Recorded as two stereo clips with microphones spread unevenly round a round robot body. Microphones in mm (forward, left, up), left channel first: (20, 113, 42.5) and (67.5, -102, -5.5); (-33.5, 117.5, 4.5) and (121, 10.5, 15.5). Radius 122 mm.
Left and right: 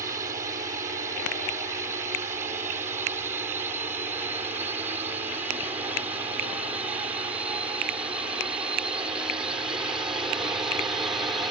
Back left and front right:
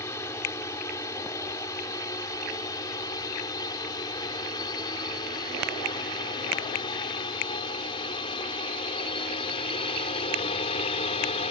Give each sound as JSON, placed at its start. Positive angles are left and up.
{"t": 0.0, "sound": "a drone", "azimuth_deg": -140}